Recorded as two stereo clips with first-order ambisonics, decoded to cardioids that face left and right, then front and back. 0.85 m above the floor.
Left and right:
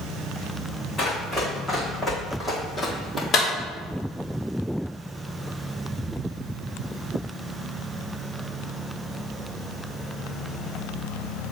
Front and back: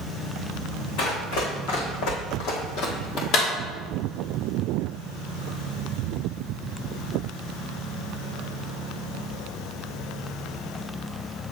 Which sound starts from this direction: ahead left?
A clap, at 3.3 s.